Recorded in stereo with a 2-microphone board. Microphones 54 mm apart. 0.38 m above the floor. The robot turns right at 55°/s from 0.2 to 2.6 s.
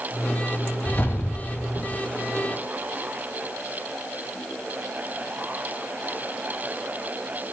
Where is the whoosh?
40° left, 0.6 m; by 2.0 s 105° left, 0.6 m.